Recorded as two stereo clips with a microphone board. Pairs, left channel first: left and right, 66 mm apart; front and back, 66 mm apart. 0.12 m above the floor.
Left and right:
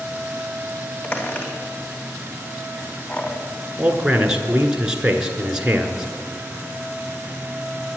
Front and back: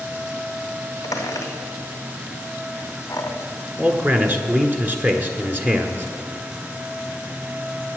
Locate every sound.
1.0 s a squeak: 30° left, 2.5 m
3.8 s a man speaking: 160° right, 1.3 m